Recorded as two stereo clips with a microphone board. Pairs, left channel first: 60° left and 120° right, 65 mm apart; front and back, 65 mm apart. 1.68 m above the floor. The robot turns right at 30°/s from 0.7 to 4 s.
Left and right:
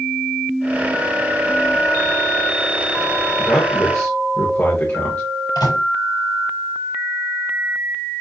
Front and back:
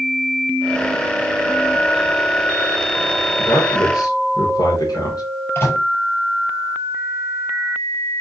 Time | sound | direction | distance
3.4 | a man speaking | 10° right | 2.5 m
5.5 | a microwave | 50° left | 6 m